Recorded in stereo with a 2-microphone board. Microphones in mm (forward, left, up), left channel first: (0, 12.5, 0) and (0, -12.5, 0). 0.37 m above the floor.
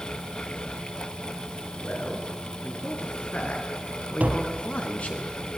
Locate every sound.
1.8 s a man speaking: 65° left (ahead or behind), 6.5 m; by 5.2 s 55° left (ahead or behind), 5 m
4.2 s tapping: 90° right, 3 m